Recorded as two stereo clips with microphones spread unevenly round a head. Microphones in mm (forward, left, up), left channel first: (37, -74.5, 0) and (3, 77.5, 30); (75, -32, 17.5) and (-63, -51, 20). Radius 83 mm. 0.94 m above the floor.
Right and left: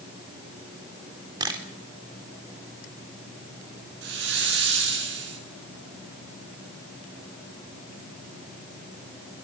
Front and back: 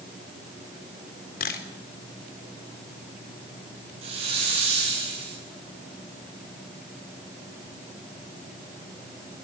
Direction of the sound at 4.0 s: 130° left.